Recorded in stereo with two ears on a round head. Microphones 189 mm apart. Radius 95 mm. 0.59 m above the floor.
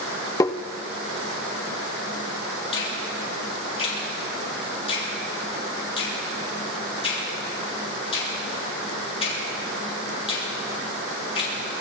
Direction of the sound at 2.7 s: 30° left (ahead or behind).